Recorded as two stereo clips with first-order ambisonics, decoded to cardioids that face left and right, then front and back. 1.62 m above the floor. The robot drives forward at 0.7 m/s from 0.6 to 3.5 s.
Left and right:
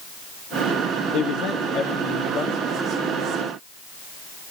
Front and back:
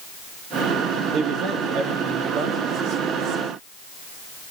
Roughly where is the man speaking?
Behind left.